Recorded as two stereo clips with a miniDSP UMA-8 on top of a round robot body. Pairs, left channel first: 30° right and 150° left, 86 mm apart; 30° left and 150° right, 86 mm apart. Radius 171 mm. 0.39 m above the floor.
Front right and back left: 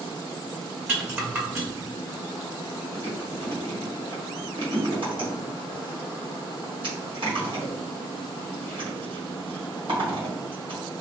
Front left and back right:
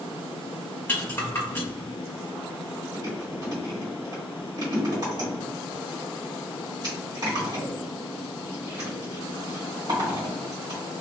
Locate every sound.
0.9 s a rattle: 90° left, 1.7 m
2.9 s chewing: 170° left, 1.8 m